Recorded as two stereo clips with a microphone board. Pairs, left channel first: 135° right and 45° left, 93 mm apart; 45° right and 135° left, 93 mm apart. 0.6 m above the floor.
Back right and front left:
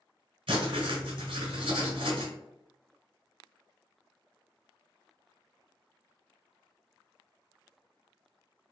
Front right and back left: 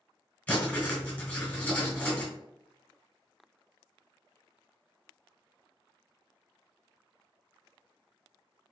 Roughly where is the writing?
Ahead left.